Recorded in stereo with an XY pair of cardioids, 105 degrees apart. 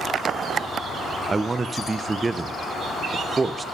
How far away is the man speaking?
About 0.6 m.